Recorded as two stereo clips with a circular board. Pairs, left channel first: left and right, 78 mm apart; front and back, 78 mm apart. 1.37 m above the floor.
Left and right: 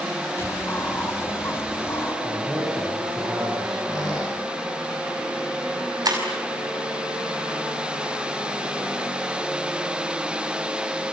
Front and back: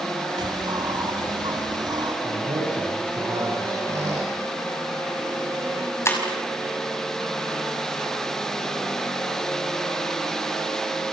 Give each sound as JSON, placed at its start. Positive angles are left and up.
{"t": 0.4, "sound": "a bird", "azimuth_deg": 150, "distance_m": 3.0}
{"t": 2.2, "sound": "a man speaking", "azimuth_deg": -175, "distance_m": 7.5}
{"t": 3.9, "sound": "a squeak", "azimuth_deg": 130, "distance_m": 9.0}
{"t": 6.0, "sound": "breaking glass", "azimuth_deg": -55, "distance_m": 5.5}